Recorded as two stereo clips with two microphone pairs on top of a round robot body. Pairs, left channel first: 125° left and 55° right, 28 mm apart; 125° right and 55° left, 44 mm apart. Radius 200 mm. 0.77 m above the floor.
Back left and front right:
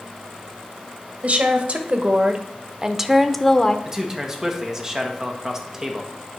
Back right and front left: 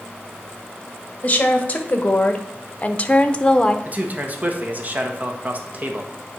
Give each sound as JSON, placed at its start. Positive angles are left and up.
{"t": 1.2, "sound": "a woman speaking", "azimuth_deg": -70, "distance_m": 1.7}
{"t": 3.9, "sound": "a man speaking", "azimuth_deg": 10, "distance_m": 1.5}